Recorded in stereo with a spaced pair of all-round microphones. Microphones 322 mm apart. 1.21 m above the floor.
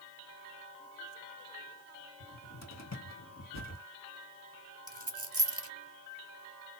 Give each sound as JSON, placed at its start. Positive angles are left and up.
{"t": 2.2, "sound": "a cupboard door", "side_deg": 50, "distance_m": 1.4}
{"t": 4.9, "sound": "a dropped coin", "side_deg": -45, "distance_m": 1.1}